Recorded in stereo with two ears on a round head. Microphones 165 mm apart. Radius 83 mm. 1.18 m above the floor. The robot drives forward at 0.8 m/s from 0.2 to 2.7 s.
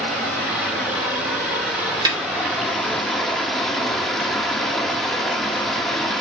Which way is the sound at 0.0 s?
Centre (ahead or behind).